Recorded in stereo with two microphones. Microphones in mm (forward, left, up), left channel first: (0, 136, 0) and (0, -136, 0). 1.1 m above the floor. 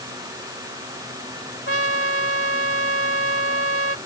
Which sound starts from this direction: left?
A trumpet, at 1.7 s.